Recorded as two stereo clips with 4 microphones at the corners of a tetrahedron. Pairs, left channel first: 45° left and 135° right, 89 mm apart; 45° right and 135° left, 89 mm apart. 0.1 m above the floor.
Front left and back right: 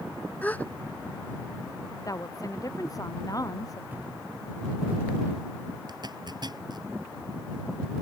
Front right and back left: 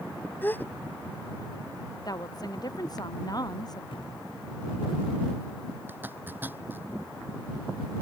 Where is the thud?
65° right.